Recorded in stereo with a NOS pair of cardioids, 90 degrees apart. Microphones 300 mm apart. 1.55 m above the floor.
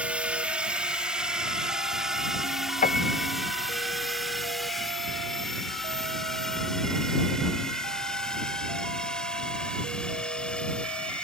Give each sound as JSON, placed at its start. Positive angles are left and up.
{"t": 0.0, "sound": "a drone", "azimuth_deg": -5}
{"t": 2.8, "sound": "a piano", "azimuth_deg": 30}